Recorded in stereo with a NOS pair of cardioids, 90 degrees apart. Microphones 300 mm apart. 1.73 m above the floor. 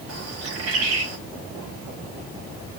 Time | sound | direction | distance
0.1 | a bird | 55° right | 5 m